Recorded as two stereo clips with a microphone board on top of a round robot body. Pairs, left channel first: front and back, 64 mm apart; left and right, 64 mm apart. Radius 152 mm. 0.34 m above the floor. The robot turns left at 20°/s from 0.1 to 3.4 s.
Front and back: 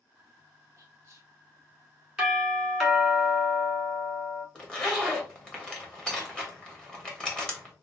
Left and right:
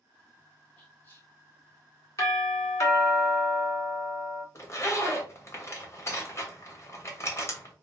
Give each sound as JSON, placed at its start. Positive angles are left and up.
{"t": 0.8, "sound": "whispering", "azimuth_deg": 140, "distance_m": 1.6}
{"t": 2.2, "sound": "a doorbell", "azimuth_deg": 100, "distance_m": 2.5}
{"t": 4.5, "sound": "a zipper", "azimuth_deg": 75, "distance_m": 1.7}